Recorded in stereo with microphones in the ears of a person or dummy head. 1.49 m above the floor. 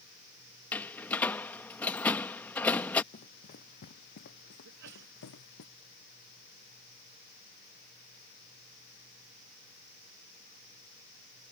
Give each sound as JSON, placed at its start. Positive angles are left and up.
{"t": 0.7, "sound": "a door slam", "side_deg": 5}
{"t": 3.1, "sound": "running footsteps", "side_deg": 40}
{"t": 4.7, "sound": "a sneeze", "side_deg": -65}